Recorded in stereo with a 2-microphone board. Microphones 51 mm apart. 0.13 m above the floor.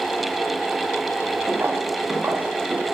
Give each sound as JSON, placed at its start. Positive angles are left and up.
{"t": 1.5, "sound": "footsteps", "side_deg": -50, "distance_m": 2.5}